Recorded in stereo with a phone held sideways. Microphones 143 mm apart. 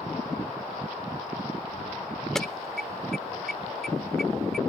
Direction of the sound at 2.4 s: 5° left (ahead or behind).